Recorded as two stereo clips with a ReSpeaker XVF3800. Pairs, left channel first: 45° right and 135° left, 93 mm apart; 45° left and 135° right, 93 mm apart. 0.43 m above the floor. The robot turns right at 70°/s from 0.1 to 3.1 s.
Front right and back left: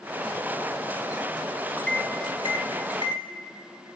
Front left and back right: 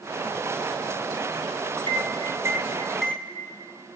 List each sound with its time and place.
1.9 s a microwave: 120° right, 3 m; by 3.3 s 35° right, 3 m